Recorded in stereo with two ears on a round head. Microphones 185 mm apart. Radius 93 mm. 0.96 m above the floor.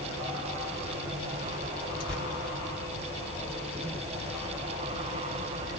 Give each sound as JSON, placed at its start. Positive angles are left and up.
{"t": 2.0, "sound": "tearing paper", "side_deg": 45, "distance_m": 1.7}